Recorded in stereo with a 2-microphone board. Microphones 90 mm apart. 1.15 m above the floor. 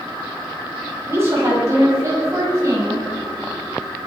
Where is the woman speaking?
30° right (ahead or behind), 5.5 m; by 3.0 s 35° right (ahead or behind), 7 m.